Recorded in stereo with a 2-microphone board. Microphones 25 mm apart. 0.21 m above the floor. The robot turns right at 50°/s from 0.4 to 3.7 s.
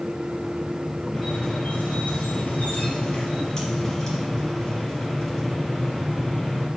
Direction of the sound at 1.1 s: 35° left.